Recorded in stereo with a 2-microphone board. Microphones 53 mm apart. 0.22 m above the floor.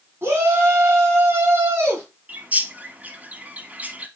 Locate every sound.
0.2 s a shout: 45° right (ahead or behind), 1.8 m
2.3 s a bird: 30° right (ahead or behind), 0.7 m